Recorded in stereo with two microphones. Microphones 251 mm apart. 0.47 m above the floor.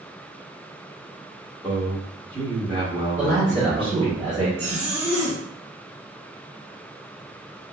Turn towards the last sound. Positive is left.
turn(degrees=-75)  # may be behind; listen again after turning